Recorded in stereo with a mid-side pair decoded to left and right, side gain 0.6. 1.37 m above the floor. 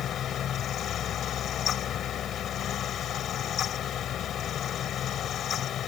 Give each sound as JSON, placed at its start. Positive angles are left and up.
{"t": 0.0, "sound": "a fan", "azimuth_deg": 50}